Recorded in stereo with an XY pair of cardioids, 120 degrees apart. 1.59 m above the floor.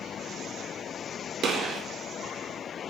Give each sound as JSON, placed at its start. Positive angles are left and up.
{"t": 1.4, "sound": "a gunshot", "azimuth_deg": -50, "distance_m": 0.6}